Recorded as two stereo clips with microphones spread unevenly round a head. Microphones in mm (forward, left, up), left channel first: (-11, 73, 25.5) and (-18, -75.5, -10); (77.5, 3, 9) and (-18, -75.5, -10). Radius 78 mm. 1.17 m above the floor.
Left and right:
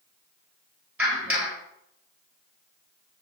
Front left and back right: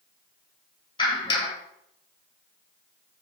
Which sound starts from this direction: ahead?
A clap, at 1.0 s.